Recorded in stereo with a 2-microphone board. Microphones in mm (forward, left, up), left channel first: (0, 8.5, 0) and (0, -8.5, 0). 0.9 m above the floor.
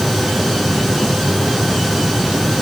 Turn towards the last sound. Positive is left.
No sound to turn to.